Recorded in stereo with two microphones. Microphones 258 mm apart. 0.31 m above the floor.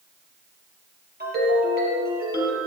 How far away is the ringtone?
About 5 m.